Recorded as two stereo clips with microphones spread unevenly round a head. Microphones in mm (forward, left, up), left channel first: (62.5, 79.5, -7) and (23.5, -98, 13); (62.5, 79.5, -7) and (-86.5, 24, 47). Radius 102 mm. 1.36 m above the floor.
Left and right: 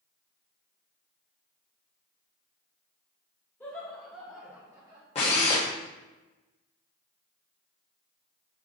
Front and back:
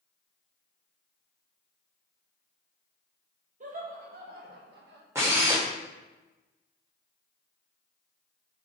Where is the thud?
I don't hear a thud.